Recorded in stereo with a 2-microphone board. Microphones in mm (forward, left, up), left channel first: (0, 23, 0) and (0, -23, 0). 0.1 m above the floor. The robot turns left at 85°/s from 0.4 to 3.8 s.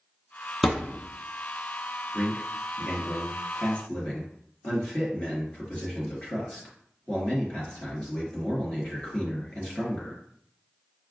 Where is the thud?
Straight ahead, 0.9 m; by 1.0 s 35° right, 0.9 m.